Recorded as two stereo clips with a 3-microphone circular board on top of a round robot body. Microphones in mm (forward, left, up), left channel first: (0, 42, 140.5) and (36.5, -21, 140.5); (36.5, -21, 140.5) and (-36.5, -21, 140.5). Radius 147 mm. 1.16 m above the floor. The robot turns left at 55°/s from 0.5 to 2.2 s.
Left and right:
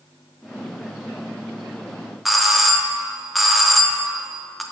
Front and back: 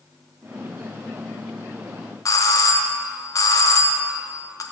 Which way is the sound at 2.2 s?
30° left.